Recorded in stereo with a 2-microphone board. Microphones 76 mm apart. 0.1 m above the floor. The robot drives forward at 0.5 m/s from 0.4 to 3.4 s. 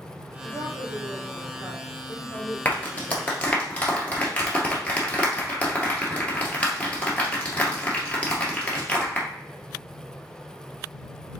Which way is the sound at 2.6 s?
20° left (ahead or behind).